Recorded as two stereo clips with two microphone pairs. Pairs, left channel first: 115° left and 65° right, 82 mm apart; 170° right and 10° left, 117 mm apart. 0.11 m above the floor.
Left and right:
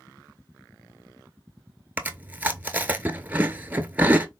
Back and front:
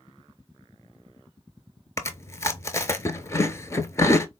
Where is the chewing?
125° right, 0.5 m.